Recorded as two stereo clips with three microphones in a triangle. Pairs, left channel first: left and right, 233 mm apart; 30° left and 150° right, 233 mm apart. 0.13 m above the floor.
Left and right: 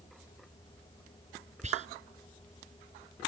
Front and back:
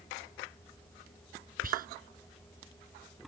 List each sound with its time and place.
1.6 s whispering: 130° right